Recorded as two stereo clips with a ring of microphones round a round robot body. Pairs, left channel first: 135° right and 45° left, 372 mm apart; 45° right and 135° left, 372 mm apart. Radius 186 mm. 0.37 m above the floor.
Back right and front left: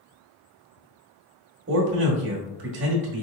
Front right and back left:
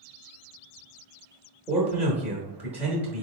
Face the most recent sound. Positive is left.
turn(degrees=50)